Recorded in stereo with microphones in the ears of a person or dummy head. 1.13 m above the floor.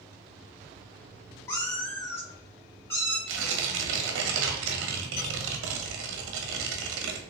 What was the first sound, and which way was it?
A cat meowing, 25° left (ahead or behind).